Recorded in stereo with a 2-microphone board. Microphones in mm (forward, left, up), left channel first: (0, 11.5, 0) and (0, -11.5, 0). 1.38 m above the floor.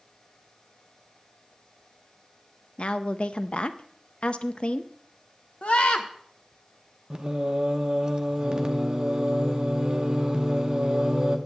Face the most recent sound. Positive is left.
turn(degrees=-30)  # may be behind; listen again after turning